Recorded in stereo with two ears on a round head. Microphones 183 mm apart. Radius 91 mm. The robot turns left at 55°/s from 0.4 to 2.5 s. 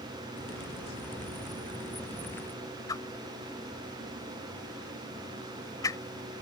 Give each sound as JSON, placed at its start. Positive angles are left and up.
{"t": 2.9, "sound": "a whoosh", "side_deg": 15}